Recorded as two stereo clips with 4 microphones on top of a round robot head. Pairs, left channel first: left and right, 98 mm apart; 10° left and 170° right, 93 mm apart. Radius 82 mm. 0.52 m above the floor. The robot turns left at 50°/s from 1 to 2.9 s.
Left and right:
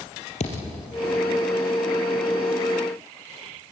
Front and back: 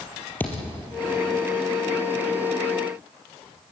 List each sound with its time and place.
0.4 s a thud: 80° left, 4.5 m